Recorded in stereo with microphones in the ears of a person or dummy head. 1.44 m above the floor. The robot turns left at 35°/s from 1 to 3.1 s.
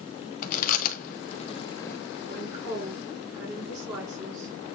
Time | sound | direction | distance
0.4 | chewing | 50° left (ahead or behind) | 1.0 m
2.3 | a woman speaking | 40° right (ahead or behind) | 5.5 m